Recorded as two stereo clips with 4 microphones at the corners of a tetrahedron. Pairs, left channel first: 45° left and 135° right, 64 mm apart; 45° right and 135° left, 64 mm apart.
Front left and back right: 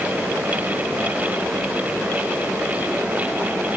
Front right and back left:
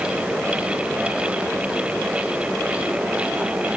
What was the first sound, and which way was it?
Only background noise.